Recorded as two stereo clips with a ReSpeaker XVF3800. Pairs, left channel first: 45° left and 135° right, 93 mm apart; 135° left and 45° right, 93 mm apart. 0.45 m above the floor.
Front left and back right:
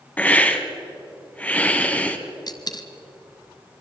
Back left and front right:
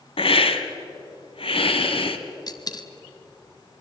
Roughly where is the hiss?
Behind left.